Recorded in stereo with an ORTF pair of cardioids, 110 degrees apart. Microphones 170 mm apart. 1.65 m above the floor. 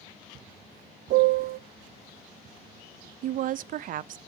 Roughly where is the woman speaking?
Ahead right.